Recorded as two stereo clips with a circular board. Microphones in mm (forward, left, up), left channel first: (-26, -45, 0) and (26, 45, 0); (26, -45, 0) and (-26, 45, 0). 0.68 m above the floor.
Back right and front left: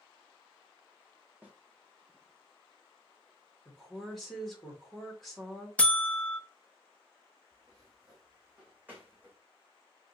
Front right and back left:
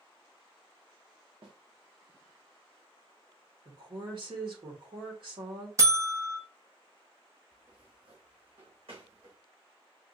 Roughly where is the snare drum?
Behind left.